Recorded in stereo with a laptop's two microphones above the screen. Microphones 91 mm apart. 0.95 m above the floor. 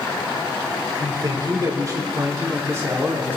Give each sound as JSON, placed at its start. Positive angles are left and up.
{"t": 1.0, "sound": "a man speaking", "side_deg": -45, "distance_m": 3.5}